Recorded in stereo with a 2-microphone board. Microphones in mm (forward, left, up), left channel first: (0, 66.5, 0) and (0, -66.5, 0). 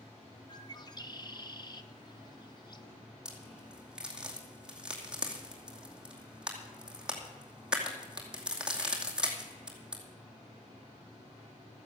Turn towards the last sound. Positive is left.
turn(degrees=-5)  # may be behind; listen again after turning